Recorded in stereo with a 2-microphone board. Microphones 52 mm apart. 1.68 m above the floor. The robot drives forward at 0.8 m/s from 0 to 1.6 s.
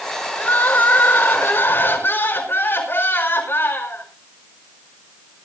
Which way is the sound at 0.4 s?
40° left (ahead or behind).